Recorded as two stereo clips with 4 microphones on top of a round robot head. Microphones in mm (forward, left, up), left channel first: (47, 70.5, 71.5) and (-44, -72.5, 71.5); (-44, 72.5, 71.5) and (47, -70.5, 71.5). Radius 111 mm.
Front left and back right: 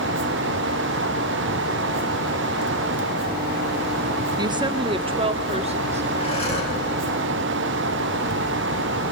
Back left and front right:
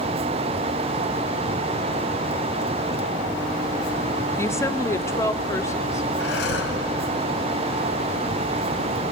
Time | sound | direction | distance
4.4 | a woman speaking | 170° right | 1.4 m
6.2 | breathing | 115° left | 4 m